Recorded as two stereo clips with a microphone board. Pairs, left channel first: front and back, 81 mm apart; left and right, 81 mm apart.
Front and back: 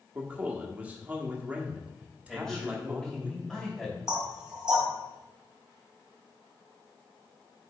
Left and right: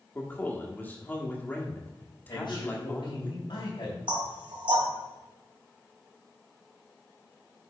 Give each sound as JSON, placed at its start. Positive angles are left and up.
{"t": 0.1, "sound": "a man speaking", "azimuth_deg": 130, "distance_m": 1.4}
{"t": 2.3, "sound": "a man speaking", "azimuth_deg": 85, "distance_m": 3.0}
{"t": 4.1, "sound": "knocking", "azimuth_deg": -100, "distance_m": 2.5}